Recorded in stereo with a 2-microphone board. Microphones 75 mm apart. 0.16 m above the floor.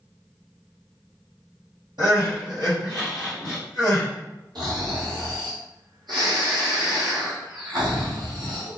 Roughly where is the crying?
Right.